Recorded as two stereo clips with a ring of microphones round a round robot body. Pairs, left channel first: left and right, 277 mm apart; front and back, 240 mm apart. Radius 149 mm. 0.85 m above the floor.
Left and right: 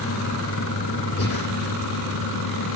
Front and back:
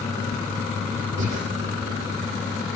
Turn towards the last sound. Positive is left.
turn(degrees=140)